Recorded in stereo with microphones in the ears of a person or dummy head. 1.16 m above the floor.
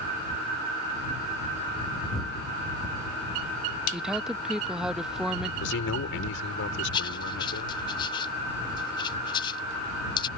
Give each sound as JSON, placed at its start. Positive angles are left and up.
{"t": 3.9, "sound": "a woman speaking", "side_deg": 0}
{"t": 5.6, "sound": "a man speaking", "side_deg": 75}
{"t": 6.9, "sound": "writing", "side_deg": 25}